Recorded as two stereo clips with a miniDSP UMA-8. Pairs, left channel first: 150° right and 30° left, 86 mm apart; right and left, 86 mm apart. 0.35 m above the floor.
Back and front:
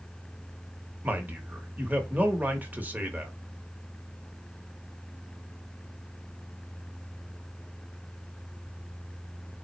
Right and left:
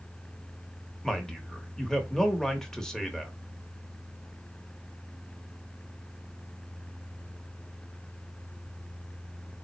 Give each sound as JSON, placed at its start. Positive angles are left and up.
{"t": 1.0, "sound": "a man speaking", "azimuth_deg": -10, "distance_m": 1.0}